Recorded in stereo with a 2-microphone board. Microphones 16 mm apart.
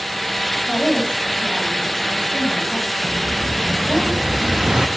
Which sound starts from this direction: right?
An explosion, at 3.0 s.